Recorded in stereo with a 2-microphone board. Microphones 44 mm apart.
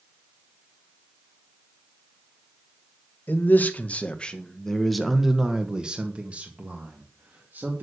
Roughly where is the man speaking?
Left.